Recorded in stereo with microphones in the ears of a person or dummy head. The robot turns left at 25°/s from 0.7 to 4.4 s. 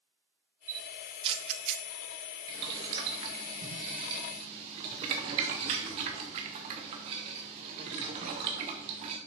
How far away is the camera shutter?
About 0.7 m.